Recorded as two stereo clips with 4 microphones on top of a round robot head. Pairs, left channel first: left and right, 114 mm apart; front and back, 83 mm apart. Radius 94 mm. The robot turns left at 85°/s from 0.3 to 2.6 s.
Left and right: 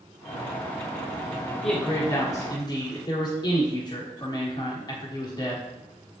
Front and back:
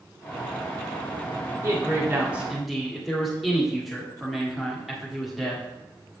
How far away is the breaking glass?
No breaking glass in this recording.